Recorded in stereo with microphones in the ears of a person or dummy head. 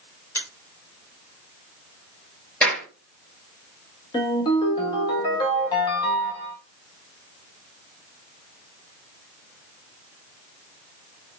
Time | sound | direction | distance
0.3 | a finger snap | 20° left (ahead or behind) | 2 m
2.6 | a clap | 5° left (ahead or behind) | 2.5 m
4.1 | a ringtone | 25° left (ahead or behind) | 1.7 m